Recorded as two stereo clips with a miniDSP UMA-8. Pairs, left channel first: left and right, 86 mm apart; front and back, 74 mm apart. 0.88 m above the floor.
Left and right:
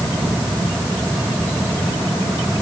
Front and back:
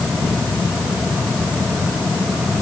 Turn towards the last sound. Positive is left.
No sound to turn to.